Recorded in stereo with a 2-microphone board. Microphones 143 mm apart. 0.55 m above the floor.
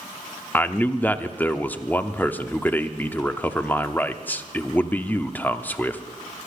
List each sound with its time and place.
0.5 s a man speaking: 10° left (ahead or behind), 0.8 m